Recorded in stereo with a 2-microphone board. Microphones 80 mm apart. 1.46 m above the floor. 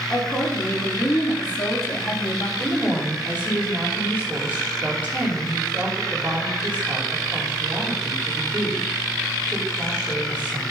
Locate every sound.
0.1 s a woman speaking: 15° left (ahead or behind), 3 m; by 2.5 s 50° left (ahead or behind), 1.9 m
2.6 s a woman speaking: 20° right (ahead or behind), 4.5 m